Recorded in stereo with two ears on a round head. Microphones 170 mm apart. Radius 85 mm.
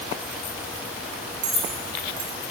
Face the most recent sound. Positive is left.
turn(degrees=-55)  # may be behind; listen again after turning